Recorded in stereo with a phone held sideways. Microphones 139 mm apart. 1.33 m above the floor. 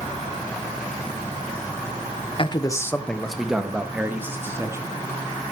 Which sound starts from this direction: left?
A man speaking, at 2.4 s.